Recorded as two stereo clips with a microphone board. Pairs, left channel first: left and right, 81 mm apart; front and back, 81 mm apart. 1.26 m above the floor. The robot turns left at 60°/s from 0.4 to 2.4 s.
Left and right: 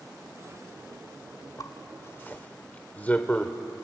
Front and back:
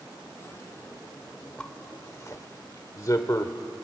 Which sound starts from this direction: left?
A zipper, at 1.6 s.